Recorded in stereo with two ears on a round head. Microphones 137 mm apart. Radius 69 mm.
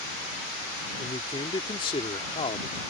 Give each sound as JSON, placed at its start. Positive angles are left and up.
{"t": 1.0, "sound": "a man speaking", "side_deg": 35}